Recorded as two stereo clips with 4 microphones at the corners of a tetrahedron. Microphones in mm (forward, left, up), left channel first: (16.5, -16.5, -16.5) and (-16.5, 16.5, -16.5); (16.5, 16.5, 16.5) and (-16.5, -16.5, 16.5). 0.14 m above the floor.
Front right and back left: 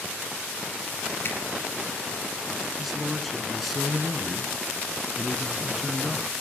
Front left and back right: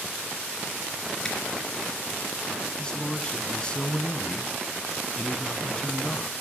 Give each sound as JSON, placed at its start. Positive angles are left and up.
{"t": 1.2, "sound": "a zipper", "azimuth_deg": -30, "distance_m": 3.0}
{"t": 2.8, "sound": "a man speaking", "azimuth_deg": 45, "distance_m": 1.1}